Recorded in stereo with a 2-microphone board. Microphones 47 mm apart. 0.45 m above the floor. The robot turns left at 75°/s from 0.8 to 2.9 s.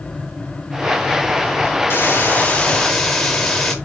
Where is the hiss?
90° left, 0.7 m; by 3.8 s 15° left, 0.7 m.